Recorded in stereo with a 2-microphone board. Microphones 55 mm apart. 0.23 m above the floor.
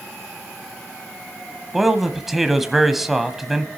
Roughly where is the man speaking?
Centre.